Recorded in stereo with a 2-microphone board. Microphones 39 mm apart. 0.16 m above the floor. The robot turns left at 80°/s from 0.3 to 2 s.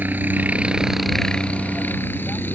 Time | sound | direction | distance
0.0 | a helicopter | 120° right | ?